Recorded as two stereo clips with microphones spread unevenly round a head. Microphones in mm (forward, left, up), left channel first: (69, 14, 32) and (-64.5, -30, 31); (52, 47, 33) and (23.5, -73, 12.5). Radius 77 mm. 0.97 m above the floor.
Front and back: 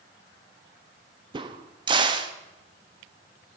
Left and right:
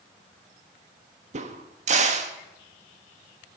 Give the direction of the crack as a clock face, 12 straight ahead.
4 o'clock.